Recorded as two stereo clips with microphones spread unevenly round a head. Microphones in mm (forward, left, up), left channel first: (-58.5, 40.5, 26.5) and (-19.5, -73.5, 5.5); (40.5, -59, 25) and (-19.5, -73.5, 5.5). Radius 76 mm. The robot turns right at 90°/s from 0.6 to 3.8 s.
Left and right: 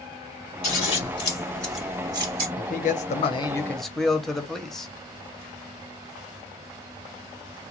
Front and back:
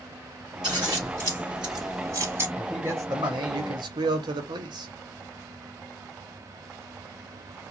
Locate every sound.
0.6 s scissors: 95° left, 1.7 m; by 2.5 s 105° right, 1.7 m
2.6 s a man speaking: 80° left, 0.8 m; by 4.9 s 165° right, 0.8 m